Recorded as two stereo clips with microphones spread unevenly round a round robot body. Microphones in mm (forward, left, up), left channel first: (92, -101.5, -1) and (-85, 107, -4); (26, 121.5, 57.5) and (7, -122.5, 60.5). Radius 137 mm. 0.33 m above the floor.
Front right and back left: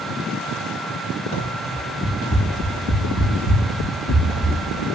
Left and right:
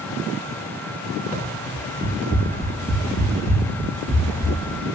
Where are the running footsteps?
10° right, 8.5 m; by 4.5 s 5° left, 7 m.